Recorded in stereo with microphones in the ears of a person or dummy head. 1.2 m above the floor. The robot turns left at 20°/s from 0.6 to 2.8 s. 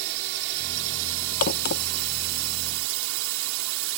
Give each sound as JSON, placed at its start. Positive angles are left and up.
{"t": 0.0, "sound": "a drone", "azimuth_deg": -65}
{"t": 1.4, "sound": "a crack", "side_deg": 50}